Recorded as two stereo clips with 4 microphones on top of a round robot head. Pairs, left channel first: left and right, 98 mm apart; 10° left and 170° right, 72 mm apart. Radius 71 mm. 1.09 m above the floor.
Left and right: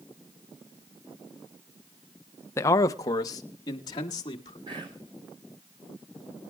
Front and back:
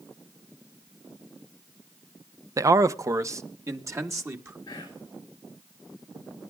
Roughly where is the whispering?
Ahead right.